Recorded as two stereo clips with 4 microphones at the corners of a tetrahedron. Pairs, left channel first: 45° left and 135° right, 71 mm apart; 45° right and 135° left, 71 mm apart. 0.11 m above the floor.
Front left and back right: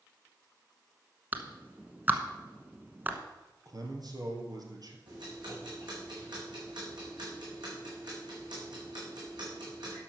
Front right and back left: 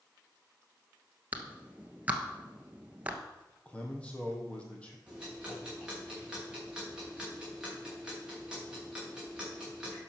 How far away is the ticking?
About 5.5 m.